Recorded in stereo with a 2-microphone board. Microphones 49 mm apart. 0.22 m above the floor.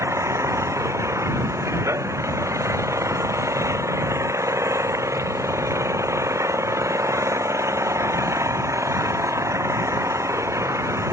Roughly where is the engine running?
Right.